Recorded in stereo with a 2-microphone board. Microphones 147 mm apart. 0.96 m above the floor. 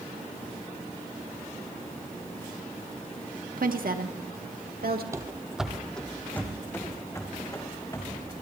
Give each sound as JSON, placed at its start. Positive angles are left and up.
{"t": 3.6, "sound": "a woman speaking", "side_deg": -75, "distance_m": 1.2}
{"t": 5.1, "sound": "running footsteps", "side_deg": -20, "distance_m": 1.0}